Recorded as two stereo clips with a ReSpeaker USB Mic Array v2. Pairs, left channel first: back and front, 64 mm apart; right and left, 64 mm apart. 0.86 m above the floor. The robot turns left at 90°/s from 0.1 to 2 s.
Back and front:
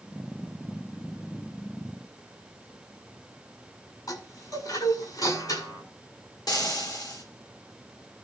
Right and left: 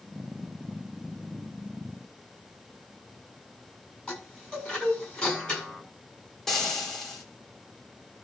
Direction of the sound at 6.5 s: 175° right.